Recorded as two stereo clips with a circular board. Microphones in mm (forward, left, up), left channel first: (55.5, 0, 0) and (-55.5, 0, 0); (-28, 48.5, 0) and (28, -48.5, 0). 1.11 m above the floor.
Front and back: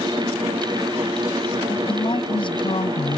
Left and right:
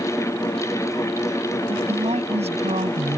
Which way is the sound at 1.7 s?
40° right.